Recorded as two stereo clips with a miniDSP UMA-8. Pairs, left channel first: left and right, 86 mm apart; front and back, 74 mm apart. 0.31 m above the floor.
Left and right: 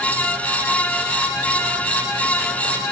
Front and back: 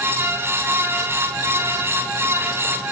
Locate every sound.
Only background noise.